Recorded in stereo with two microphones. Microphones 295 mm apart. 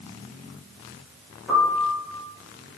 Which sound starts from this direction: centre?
A piano, at 1.5 s.